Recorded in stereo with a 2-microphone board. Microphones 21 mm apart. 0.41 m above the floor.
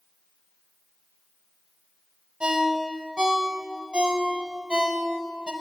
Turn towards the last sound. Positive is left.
turn(degrees=-55)  # may be behind; listen again after turning